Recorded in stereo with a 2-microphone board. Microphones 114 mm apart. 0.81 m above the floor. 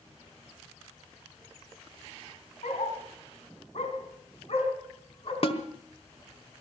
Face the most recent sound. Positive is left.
turn(degrees=55)  # may be behind; listen again after turning